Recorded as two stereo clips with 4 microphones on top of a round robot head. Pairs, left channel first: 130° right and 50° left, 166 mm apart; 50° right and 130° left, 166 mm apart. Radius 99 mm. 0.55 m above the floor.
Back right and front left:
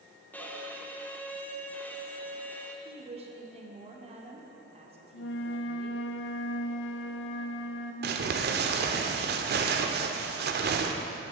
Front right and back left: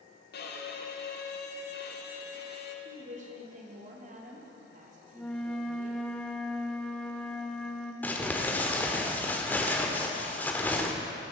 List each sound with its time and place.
0.3 s a violin: 50° right, 1.1 m
2.9 s a woman speaking: 95° left, 1.9 m
5.1 s a flute: 135° right, 0.7 m
8.0 s crumpling: 30° left, 1.0 m